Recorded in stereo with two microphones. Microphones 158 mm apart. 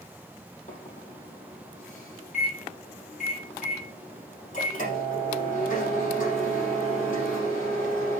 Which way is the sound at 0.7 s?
50° left (ahead or behind).